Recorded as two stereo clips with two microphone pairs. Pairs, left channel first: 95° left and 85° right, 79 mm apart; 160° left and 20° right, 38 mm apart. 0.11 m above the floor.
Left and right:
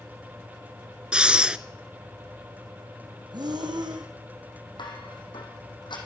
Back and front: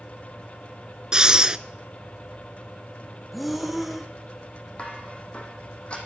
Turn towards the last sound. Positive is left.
turn(degrees=100)